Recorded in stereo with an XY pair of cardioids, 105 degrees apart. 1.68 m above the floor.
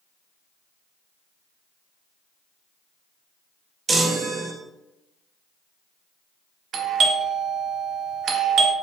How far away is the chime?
About 0.7 m.